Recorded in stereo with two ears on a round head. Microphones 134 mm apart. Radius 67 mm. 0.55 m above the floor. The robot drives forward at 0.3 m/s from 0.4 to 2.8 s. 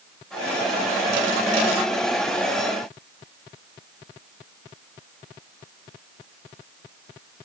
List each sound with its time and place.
Only background noise.